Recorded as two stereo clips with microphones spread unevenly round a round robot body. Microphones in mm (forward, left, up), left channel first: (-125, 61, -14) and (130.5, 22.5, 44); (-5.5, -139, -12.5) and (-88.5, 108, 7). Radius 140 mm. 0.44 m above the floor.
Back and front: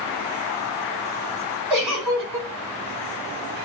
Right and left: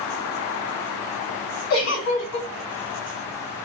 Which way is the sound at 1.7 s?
100° right.